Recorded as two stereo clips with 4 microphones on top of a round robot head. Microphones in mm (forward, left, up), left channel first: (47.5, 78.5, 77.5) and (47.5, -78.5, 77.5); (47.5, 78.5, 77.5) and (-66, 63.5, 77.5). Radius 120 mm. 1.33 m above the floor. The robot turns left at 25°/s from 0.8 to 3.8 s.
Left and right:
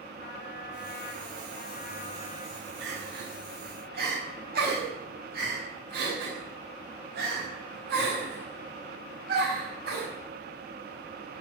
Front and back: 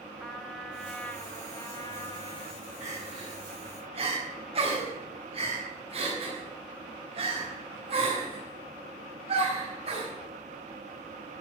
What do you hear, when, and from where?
0.2 s a trumpet: 90° left, 2 m; by 2.7 s 45° left, 2 m
2.8 s crying: 100° right, 6.5 m; by 10.1 s 125° right, 6.5 m